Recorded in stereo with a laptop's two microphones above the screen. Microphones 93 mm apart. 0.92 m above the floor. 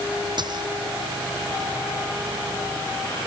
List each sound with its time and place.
0.4 s a dropped coin: 55° right (ahead or behind)